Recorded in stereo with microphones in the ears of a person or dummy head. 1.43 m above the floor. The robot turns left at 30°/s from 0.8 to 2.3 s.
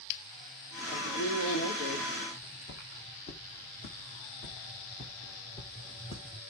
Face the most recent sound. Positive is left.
turn(degrees=15)  # may be behind; listen again after turning